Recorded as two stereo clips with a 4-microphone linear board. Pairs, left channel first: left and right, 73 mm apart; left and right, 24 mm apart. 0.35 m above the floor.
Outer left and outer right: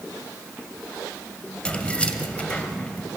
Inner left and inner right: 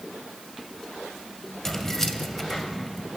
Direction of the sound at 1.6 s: 15° left (ahead or behind).